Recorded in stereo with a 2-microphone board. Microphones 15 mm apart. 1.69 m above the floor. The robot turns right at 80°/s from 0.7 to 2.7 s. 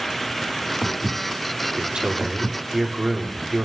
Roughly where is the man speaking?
Right.